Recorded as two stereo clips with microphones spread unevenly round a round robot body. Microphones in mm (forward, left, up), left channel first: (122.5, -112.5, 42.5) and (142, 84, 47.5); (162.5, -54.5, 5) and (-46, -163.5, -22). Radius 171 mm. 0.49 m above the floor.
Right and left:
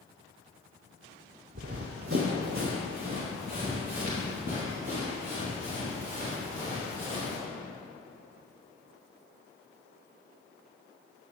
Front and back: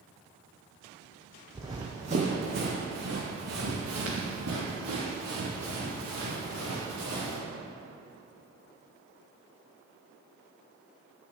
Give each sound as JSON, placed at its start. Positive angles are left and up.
{"t": 1.6, "sound": "running footsteps", "azimuth_deg": 125, "distance_m": 0.7}